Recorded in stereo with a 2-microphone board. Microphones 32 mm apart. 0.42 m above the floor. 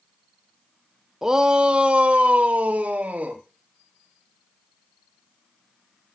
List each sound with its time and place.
1.2 s a shout: 15° right (ahead or behind), 0.7 m; by 3.4 s 65° right (ahead or behind), 1.6 m